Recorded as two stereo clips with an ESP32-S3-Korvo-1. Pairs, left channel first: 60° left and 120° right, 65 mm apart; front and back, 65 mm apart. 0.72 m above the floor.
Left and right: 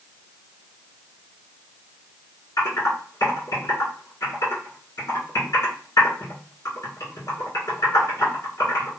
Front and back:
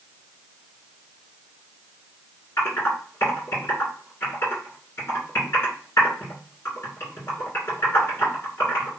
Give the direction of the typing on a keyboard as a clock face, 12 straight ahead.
10 o'clock.